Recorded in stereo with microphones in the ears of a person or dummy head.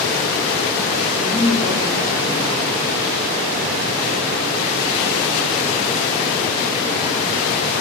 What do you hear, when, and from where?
1.1 s a woman speaking: 75° left (ahead or behind), 8.5 m